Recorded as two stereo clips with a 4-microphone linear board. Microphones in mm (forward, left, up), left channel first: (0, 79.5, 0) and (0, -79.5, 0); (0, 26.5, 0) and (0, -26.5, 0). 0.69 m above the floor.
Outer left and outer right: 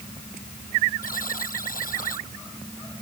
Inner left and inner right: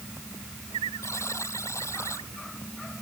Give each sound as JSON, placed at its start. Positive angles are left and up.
{"t": 1.0, "sound": "a buzzer", "side_deg": 60}